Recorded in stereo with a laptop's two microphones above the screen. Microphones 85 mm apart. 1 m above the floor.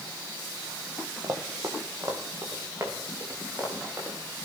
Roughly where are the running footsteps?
Right.